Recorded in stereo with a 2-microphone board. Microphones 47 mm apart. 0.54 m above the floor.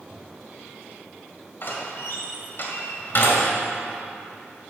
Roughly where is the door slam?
Left.